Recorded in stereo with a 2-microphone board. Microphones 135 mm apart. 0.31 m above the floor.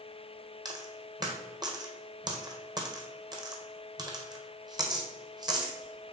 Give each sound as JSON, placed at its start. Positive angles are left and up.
{"t": 0.7, "sound": "a dropped coin", "side_deg": -30, "distance_m": 1.5}